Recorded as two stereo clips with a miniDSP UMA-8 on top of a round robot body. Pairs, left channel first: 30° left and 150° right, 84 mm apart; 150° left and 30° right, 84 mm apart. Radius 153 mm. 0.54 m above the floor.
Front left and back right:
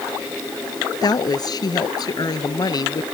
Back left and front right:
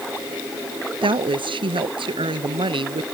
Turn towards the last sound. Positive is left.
turn(degrees=-10)